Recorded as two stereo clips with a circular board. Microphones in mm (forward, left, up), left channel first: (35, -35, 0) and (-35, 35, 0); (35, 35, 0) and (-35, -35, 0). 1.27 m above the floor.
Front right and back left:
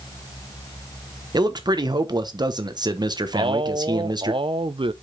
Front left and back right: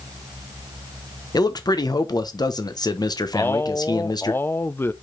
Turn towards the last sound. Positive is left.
turn(degrees=110)